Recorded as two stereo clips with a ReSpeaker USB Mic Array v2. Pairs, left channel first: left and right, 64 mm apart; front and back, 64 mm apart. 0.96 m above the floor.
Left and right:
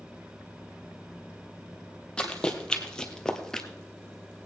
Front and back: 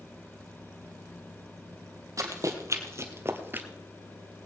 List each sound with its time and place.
2.2 s running footsteps: 165° left, 1.9 m